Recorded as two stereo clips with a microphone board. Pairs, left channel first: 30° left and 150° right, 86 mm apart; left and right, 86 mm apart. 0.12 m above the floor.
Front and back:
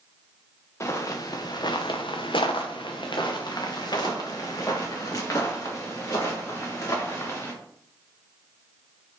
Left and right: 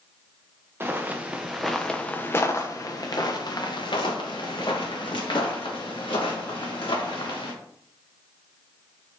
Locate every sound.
0.8 s footsteps: 25° right, 0.9 m; by 7.5 s 90° left, 3 m